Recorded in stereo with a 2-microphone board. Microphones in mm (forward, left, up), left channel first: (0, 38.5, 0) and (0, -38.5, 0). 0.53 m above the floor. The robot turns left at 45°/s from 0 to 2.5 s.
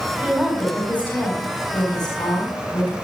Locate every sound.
0.2 s a woman speaking: 160° right, 4 m; by 2.9 s 100° left, 4 m